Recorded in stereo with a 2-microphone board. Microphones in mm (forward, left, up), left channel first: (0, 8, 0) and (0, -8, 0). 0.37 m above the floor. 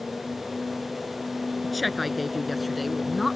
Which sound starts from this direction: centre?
A woman speaking, at 1.6 s.